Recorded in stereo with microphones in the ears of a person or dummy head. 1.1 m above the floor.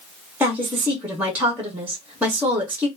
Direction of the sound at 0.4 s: 10° right (ahead or behind).